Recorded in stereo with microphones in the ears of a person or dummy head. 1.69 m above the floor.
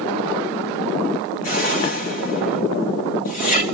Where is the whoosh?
45° left (ahead or behind), 1.5 m.